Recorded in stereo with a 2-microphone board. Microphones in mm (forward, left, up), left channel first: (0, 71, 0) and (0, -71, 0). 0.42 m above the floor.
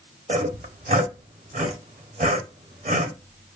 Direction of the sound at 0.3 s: 55° right (ahead or behind).